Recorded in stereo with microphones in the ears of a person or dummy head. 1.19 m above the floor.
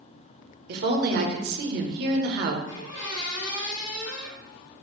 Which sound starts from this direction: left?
A squeak, at 2.7 s.